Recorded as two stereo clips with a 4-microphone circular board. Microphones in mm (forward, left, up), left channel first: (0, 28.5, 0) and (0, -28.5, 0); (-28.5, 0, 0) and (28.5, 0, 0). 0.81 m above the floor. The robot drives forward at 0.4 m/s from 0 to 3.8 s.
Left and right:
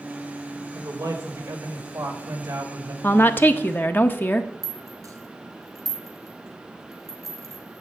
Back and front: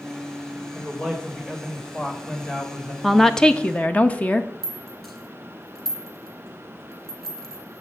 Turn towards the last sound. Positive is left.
turn(degrees=-100)